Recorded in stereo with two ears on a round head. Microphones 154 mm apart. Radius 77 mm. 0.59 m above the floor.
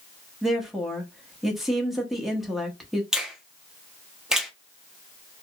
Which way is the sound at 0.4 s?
Centre (ahead or behind).